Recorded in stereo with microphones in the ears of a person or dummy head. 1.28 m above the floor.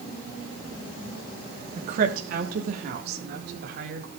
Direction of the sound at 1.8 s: 50° right (ahead or behind).